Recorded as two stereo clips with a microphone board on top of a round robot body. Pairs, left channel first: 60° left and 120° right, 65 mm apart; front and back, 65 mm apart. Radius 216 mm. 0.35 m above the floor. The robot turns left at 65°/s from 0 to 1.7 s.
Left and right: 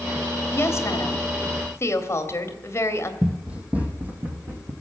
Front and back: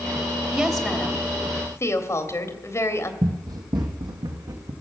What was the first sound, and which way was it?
A woman speaking, 100° left.